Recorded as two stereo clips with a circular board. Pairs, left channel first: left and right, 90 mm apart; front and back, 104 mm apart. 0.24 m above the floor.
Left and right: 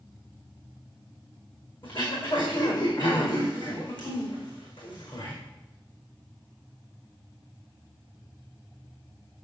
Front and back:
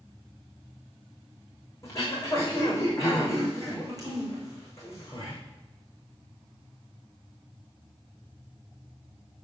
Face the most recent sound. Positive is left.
turn(degrees=60)